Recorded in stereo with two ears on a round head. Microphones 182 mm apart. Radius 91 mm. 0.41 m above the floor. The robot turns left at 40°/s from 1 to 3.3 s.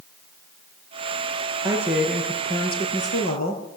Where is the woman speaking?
160° right, 7.5 m; by 3.6 s 130° left, 7.5 m.